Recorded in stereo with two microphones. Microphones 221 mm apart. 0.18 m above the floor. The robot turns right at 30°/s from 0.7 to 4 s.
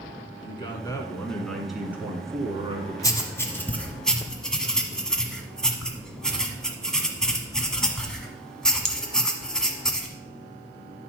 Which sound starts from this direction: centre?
Writing, at 3.0 s.